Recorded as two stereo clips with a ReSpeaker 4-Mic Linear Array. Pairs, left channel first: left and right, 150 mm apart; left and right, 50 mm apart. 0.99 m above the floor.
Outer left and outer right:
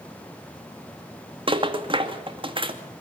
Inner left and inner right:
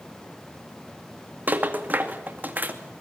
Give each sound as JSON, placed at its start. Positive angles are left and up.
{"t": 1.5, "sound": "a rattle", "side_deg": -40, "distance_m": 2.0}